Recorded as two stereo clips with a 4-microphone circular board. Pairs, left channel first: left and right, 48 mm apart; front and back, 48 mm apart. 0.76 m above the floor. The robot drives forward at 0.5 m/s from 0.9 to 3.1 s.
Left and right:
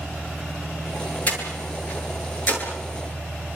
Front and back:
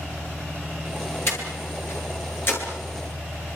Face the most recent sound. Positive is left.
turn(degrees=35)